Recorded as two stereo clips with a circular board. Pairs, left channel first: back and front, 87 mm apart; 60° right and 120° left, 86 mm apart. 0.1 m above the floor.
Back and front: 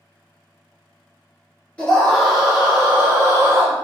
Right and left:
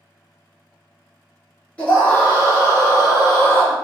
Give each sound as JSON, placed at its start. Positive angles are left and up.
{"t": 1.8, "sound": "a scream", "azimuth_deg": -120, "distance_m": 1.3}